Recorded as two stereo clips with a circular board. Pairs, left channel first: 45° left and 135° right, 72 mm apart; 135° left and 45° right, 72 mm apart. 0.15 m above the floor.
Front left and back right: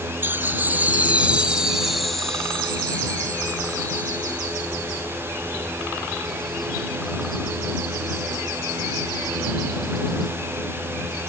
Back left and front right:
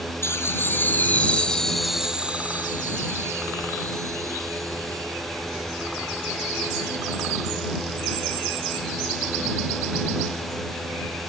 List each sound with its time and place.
0.2 s laughter: 175° left; by 5.8 s 10° right